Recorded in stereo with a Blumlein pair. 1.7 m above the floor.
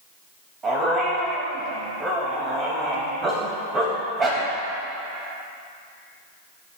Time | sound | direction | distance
0.6 | a dog barking | 20° right | 4 m